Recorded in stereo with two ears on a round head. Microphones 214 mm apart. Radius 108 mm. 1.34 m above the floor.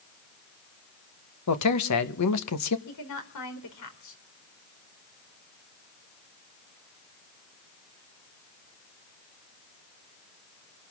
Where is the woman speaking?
80° left, 4 m.